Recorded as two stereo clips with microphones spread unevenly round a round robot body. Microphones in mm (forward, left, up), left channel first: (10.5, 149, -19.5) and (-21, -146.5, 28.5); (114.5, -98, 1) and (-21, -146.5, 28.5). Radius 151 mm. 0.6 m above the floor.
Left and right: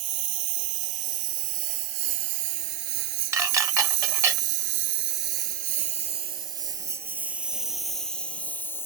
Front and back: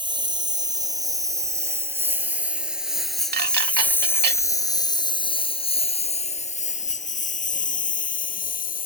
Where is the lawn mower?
105° right; by 8.9 s straight ahead.